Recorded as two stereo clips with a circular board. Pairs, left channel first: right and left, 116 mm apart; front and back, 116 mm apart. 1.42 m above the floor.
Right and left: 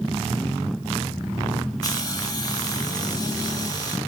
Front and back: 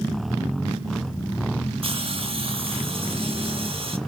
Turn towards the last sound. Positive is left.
turn(degrees=-145)